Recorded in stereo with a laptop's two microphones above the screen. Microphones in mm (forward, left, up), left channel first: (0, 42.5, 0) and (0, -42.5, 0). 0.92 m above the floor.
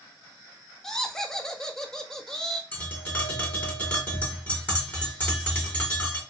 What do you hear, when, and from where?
0.8 s laughter: 5° left (ahead or behind), 0.8 m
2.7 s tapping: 20° left (ahead or behind), 2 m